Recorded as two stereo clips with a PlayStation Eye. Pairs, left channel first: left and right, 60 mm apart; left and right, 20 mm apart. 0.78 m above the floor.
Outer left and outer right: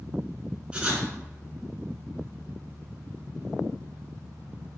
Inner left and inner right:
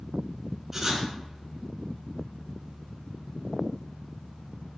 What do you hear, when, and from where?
0.7 s writing: 20° right (ahead or behind), 3 m